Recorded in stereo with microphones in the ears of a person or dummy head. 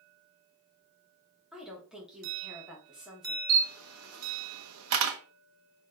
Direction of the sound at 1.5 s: 10° right (ahead or behind).